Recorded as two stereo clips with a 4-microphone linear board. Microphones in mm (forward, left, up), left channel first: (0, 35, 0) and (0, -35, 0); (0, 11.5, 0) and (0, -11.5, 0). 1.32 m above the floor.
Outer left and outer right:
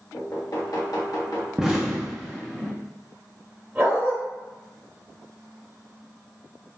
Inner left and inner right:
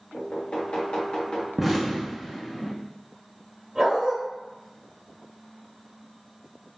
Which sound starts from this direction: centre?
An explosion, at 1.6 s.